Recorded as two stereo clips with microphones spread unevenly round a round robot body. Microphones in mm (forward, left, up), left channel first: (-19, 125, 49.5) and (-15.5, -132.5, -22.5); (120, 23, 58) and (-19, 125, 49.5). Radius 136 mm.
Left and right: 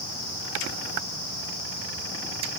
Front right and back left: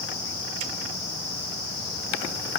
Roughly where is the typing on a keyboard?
I don't hear typing on a keyboard.